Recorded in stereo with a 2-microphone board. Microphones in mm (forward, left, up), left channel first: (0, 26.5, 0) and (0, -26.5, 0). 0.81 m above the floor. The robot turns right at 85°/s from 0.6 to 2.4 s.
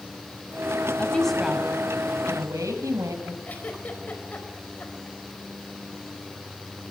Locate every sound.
1.0 s a woman speaking: 150° left, 5.5 m; by 3.4 s 90° right, 5.5 m
3.5 s a giggle: 30° left (ahead or behind), 4.5 m